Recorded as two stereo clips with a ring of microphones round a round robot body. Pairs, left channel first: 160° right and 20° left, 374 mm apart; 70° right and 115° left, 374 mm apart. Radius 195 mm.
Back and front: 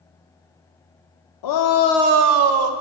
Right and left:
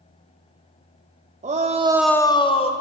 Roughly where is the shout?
Behind.